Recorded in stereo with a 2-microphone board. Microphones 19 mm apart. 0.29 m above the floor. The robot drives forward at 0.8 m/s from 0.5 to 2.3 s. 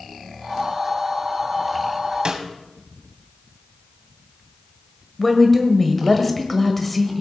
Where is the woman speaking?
10° left (ahead or behind), 1.4 m.